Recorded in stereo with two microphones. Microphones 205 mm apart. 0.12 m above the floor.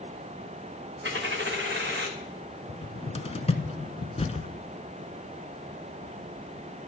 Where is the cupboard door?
30° left (ahead or behind), 0.7 m.